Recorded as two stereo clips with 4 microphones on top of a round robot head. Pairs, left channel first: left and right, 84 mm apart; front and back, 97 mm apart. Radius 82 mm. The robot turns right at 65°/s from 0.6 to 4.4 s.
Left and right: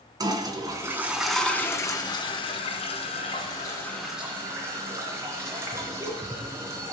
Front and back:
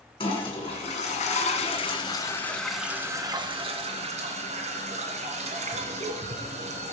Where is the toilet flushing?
45° right, 2 m; by 6.9 s 160° right, 2 m.